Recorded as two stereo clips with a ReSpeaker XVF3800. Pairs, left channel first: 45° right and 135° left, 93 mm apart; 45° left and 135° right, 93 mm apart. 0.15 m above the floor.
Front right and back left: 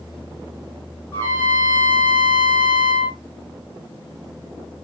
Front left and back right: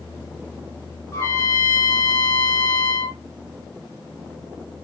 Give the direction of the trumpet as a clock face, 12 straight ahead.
12 o'clock.